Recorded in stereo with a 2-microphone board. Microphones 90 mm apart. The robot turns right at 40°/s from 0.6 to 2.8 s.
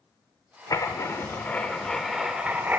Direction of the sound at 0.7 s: 125° left.